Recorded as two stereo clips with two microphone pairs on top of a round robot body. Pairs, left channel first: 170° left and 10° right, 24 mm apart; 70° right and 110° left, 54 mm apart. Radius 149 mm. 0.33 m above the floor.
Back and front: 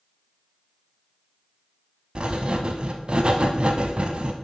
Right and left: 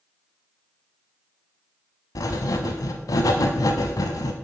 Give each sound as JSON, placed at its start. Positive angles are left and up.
{"t": 2.1, "sound": "writing", "azimuth_deg": -60, "distance_m": 0.5}